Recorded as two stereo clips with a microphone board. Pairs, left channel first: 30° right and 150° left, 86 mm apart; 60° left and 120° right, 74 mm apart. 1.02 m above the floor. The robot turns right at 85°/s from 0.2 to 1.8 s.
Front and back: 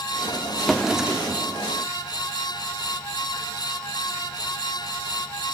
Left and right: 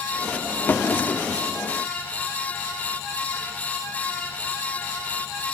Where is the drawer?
50° left, 0.6 m; by 1.4 s 115° left, 0.6 m.